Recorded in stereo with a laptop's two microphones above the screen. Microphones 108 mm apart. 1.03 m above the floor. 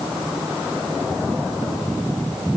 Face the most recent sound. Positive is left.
No sound to turn to.